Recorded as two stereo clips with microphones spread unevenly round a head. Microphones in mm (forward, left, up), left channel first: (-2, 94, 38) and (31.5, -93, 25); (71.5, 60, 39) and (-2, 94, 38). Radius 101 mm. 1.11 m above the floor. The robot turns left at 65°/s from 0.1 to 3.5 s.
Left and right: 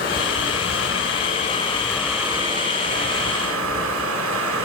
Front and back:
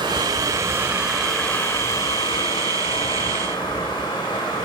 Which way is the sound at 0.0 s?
145° left.